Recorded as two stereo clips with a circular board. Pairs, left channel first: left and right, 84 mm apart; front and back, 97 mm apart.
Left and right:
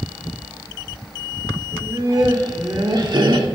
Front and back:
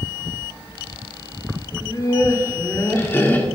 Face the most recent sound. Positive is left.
turn(degrees=-70)